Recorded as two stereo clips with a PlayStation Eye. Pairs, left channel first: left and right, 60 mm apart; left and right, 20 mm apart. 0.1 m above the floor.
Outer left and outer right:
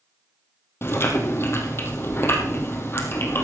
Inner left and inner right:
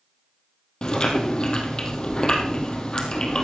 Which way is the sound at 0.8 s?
45° left (ahead or behind).